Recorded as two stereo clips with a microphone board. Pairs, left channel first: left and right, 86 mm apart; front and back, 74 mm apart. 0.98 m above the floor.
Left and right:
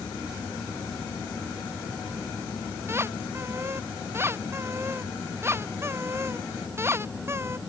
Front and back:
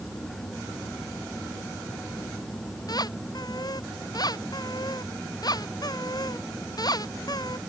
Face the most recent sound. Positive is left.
turn(degrees=-30)